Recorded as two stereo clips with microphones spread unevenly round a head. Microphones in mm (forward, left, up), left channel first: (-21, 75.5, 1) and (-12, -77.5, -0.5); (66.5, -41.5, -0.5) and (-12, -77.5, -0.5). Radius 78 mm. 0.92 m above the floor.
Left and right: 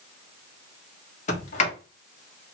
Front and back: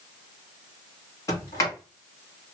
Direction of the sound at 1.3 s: 70° left.